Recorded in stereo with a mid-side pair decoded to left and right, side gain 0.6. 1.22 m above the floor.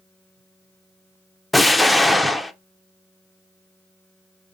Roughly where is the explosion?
Ahead.